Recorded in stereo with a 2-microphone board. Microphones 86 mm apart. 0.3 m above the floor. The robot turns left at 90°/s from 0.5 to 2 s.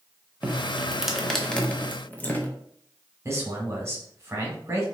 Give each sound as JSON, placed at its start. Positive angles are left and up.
{"t": 0.4, "sound": "dripping", "side_deg": -15, "distance_m": 0.6}
{"t": 3.2, "sound": "a man speaking", "side_deg": -30, "distance_m": 1.2}